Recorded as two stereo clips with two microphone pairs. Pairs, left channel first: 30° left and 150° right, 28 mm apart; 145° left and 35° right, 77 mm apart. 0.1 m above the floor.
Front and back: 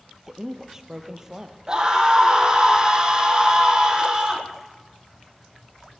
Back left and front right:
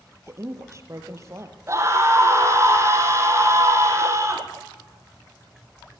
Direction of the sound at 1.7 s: 90° right.